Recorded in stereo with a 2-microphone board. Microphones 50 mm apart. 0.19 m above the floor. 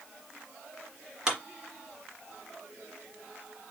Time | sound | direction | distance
1.3 | a clap | 15° right (ahead or behind) | 2 m